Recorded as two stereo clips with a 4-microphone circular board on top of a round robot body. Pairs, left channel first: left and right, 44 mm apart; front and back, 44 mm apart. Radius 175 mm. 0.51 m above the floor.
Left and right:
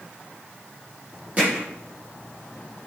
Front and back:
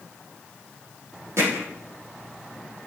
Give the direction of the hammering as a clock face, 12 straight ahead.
5 o'clock.